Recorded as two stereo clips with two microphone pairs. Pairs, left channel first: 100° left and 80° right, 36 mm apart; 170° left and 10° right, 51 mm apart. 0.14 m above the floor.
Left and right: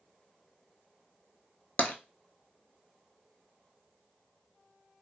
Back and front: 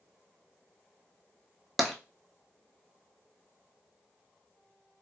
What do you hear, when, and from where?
1.8 s tapping: 80° left, 0.5 m